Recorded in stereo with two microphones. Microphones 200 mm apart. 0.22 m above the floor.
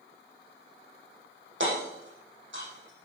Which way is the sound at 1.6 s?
75° right (ahead or behind).